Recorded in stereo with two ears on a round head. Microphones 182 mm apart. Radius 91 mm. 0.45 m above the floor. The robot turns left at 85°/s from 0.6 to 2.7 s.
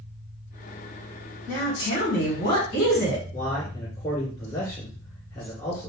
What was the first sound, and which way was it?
A woman speaking, 175° left.